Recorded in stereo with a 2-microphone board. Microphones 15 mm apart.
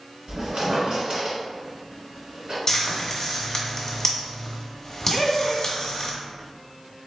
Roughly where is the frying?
Left.